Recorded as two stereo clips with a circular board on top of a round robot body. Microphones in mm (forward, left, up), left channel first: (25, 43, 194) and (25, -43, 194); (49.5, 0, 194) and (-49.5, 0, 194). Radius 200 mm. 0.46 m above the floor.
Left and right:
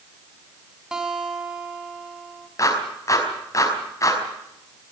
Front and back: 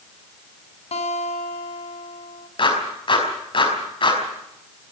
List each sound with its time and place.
0.9 s a guitar: 5° right, 3 m
2.6 s a clap: 35° left, 5 m